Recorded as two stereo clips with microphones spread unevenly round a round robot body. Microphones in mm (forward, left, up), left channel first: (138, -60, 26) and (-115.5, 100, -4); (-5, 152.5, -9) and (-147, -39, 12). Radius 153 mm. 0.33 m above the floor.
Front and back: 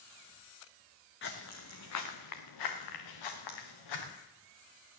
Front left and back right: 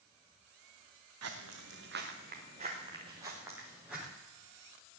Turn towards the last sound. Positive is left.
turn(degrees=-40)